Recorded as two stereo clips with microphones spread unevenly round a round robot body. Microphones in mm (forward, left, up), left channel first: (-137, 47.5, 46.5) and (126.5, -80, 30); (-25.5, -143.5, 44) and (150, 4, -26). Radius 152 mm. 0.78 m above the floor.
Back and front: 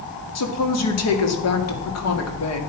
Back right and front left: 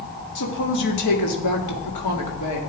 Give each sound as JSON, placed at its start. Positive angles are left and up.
{"t": 0.3, "sound": "a woman speaking", "azimuth_deg": -170, "distance_m": 2.0}